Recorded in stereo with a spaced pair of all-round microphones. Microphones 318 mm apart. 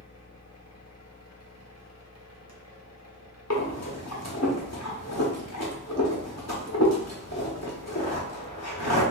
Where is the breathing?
55° left (ahead or behind), 0.9 m.